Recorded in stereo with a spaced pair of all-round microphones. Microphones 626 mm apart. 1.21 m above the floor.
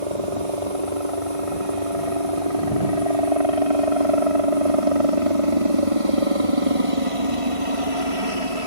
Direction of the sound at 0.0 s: 60° right (ahead or behind).